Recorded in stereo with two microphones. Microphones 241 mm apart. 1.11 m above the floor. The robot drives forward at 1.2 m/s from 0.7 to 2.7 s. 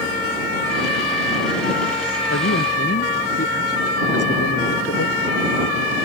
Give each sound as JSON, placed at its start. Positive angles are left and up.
{"t": 2.3, "sound": "a man speaking", "side_deg": 85}